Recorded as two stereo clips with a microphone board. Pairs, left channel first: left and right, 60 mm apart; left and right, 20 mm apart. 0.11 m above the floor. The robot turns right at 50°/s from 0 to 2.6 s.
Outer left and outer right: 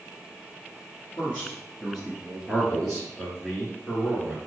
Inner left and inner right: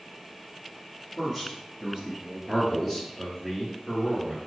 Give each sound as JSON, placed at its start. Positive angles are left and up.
{"t": 1.2, "sound": "a man speaking", "azimuth_deg": 140, "distance_m": 1.5}
{"t": 2.5, "sound": "a man speaking", "side_deg": 5, "distance_m": 1.6}